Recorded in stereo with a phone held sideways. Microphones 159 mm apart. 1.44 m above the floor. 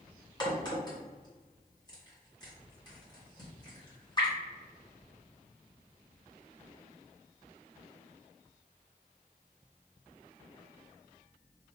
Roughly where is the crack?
Left.